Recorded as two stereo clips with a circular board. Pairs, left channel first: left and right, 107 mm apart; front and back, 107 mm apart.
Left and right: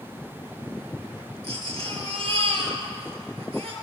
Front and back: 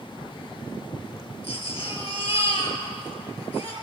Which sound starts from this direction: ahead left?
A baby crying, at 1.4 s.